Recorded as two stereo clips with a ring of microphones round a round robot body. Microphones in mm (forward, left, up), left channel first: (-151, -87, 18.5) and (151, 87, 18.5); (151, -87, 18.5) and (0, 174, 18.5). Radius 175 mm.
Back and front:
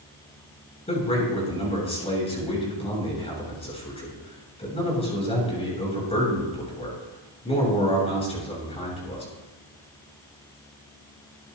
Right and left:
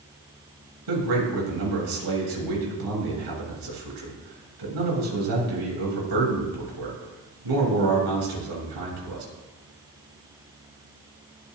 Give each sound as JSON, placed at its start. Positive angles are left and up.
{"t": 0.9, "sound": "a man speaking", "azimuth_deg": 135, "distance_m": 7.0}